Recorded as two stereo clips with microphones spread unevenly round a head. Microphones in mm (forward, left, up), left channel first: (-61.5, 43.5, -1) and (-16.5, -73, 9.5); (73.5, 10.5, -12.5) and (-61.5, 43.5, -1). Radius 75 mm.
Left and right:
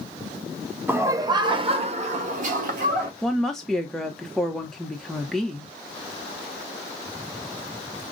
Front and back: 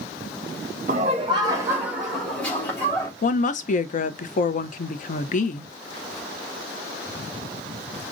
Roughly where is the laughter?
Behind right.